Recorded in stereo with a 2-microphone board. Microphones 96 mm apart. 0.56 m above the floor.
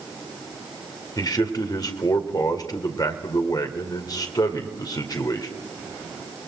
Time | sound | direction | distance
1.2 | a man speaking | 45° left (ahead or behind) | 2 m